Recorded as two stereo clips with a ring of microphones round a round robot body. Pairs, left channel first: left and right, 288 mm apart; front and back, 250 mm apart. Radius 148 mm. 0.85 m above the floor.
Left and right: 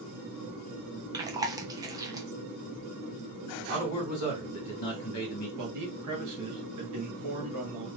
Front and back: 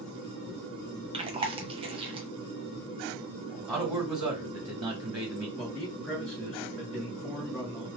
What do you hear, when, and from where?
1.1 s chewing: 150° right, 0.8 m
3.7 s a man speaking: 110° left, 1.8 m
5.6 s a man speaking: 85° right, 1.6 m